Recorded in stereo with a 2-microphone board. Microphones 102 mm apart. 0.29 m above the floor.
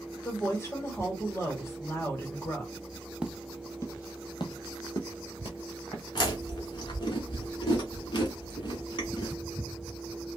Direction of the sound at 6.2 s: 50° left (ahead or behind).